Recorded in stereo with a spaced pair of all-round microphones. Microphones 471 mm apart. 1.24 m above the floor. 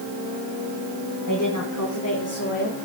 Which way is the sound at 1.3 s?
40° left (ahead or behind).